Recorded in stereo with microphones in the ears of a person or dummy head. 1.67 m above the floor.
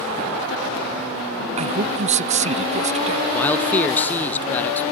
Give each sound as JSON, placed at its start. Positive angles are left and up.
{"t": 1.6, "sound": "a man speaking", "side_deg": -40}
{"t": 3.3, "sound": "a man speaking", "side_deg": 10}